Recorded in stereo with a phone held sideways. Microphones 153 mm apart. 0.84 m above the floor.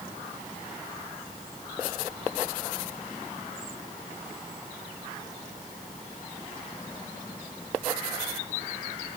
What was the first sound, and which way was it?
Only background noise.